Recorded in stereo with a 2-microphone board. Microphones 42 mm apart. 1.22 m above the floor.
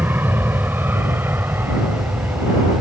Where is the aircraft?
55° right (ahead or behind); by 2.8 s 65° right (ahead or behind).